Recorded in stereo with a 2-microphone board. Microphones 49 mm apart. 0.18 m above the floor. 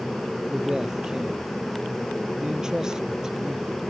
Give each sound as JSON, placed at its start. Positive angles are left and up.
{"t": 0.5, "sound": "a man speaking", "side_deg": -15}